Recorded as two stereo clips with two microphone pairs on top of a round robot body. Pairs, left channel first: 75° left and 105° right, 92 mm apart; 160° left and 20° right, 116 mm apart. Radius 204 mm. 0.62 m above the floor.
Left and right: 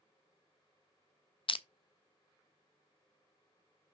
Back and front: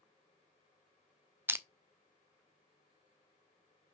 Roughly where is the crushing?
Ahead left.